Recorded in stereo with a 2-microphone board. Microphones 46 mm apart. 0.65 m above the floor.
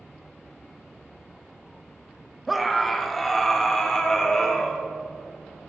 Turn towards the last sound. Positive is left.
turn(degrees=15)  # may be behind; listen again after turning